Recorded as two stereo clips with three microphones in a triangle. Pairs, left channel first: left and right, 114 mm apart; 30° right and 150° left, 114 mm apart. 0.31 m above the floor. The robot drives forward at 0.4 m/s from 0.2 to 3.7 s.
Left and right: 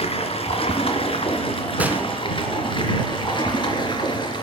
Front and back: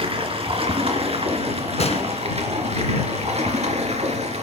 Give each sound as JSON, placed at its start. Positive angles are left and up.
{"t": 0.0, "sound": "running water", "azimuth_deg": 115, "distance_m": 3.0}
{"t": 1.8, "sound": "a gunshot", "azimuth_deg": -15, "distance_m": 2.5}